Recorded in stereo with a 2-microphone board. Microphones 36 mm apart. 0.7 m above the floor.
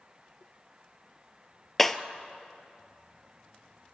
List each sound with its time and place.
1.8 s breaking glass: 10° left (ahead or behind), 0.8 m